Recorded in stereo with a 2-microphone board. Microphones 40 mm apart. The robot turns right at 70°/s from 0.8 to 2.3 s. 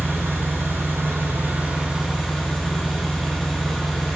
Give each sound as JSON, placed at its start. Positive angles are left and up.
{"t": 0.0, "sound": "an engine running", "azimuth_deg": -105, "distance_m": 1.5}